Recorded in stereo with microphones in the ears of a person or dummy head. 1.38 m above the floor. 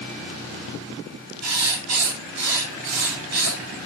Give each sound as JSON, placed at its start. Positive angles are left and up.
{"t": 1.4, "sound": "writing", "side_deg": -80, "distance_m": 8.0}